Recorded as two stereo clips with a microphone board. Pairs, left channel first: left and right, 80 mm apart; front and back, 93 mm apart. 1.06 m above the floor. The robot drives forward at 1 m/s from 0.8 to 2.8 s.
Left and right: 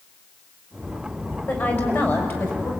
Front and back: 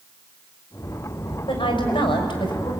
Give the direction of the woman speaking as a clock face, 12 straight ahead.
11 o'clock.